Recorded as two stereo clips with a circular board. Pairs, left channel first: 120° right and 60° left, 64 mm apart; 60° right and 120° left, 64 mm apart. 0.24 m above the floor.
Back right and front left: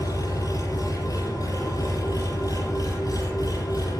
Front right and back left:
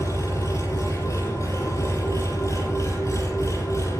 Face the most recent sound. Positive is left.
turn(degrees=-100)